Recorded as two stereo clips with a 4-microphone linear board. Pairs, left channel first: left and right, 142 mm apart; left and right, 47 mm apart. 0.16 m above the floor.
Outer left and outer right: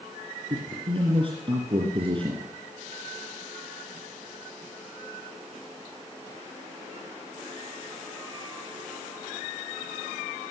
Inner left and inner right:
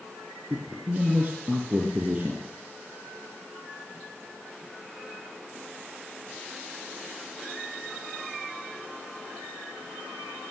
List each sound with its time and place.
0.5 s a man speaking: 35° right (ahead or behind), 3 m